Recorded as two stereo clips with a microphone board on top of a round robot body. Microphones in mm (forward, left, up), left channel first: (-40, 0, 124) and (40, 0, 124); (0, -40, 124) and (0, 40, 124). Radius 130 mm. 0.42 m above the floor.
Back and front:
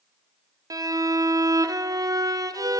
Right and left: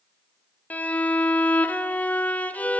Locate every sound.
0.7 s a violin: 25° right, 1.6 m